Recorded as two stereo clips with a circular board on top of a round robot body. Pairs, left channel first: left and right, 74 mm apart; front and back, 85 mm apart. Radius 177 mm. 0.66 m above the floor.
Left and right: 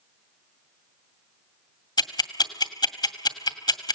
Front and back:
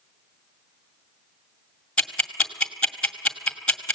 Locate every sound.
2.0 s ticking: 80° left, 2.5 m